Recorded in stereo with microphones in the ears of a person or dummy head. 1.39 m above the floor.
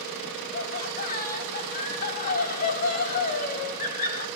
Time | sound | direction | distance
0.5 | laughter | 50° left (ahead or behind) | 4 m